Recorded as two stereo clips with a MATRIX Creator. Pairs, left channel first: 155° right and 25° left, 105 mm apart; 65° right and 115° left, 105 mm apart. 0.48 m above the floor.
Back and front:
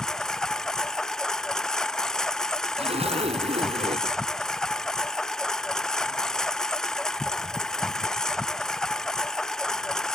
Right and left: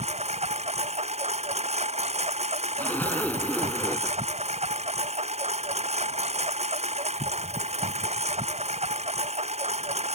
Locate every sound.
0.0 s a lawn mower: 120° left
2.8 s a zipper: 5° left